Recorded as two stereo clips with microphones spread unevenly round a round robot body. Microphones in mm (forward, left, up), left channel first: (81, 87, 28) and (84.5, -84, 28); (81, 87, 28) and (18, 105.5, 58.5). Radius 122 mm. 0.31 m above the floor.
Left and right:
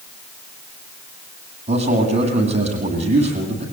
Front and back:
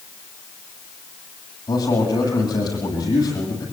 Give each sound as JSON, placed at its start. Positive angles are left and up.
{"t": 1.7, "sound": "a man speaking", "azimuth_deg": -40, "distance_m": 10.0}